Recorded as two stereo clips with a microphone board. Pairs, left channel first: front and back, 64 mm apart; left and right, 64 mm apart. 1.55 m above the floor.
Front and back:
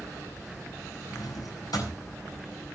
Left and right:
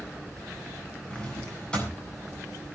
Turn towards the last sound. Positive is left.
turn(degrees=15)